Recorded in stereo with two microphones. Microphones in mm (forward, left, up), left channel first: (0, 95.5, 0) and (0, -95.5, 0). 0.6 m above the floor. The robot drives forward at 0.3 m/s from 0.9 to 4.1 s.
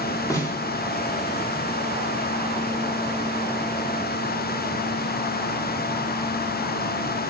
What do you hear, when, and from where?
0.3 s a snare drum: 15° left (ahead or behind), 0.8 m